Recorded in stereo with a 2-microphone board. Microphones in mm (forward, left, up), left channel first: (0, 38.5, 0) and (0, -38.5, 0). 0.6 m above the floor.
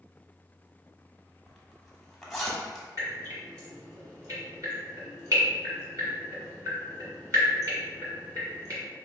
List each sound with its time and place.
1.5 s a zipper: centre (ahead or behind), 0.9 m
3.0 s dripping: 45° right (ahead or behind), 1.8 m